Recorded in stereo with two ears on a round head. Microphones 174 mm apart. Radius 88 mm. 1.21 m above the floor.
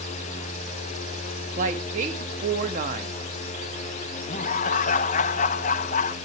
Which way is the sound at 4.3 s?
40° left (ahead or behind).